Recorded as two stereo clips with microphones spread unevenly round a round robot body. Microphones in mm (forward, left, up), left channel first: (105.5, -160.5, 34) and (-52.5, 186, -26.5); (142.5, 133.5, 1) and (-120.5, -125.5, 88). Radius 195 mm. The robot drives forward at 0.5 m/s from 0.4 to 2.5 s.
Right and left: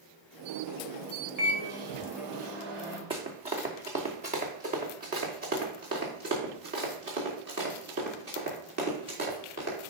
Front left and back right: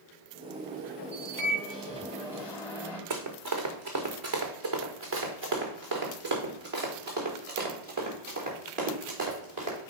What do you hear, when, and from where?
1.4 s a microwave: 130° left, 2.5 m; by 3.0 s 140° left, 2.5 m
3.1 s running footsteps: 165° right, 2.5 m; by 9.9 s straight behind, 6 m